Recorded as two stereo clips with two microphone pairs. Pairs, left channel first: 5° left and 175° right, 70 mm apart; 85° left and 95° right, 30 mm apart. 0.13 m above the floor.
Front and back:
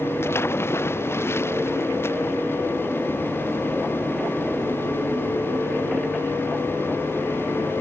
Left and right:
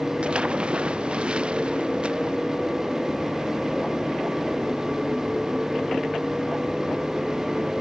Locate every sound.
0.2 s a splash: 50° right